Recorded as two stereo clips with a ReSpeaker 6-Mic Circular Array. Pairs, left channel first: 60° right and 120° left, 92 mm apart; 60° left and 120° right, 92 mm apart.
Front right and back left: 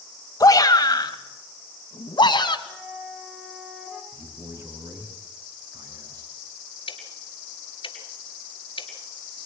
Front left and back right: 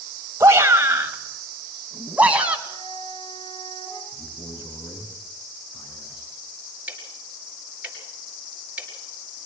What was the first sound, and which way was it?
A shout, 75° right.